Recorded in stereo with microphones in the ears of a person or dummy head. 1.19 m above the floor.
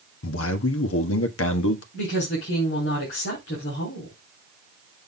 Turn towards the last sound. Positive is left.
turn(degrees=70)  # may be behind; listen again after turning